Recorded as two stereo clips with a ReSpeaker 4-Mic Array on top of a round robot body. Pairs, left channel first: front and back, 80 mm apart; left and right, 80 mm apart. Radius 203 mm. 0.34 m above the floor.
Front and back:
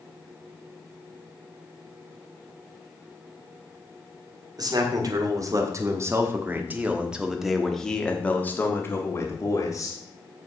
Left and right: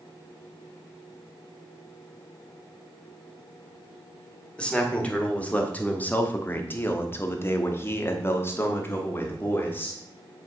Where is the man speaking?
165° left, 2.5 m; by 10.0 s 30° left, 2 m.